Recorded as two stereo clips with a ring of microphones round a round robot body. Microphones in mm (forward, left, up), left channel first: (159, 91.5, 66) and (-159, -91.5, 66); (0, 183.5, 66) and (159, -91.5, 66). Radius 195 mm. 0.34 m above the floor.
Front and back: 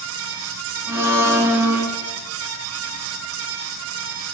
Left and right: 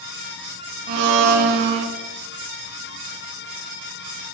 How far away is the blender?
About 0.7 m.